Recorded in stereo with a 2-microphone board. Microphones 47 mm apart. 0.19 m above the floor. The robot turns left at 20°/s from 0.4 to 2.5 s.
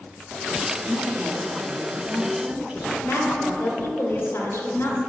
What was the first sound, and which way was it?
A woman speaking, 95° right.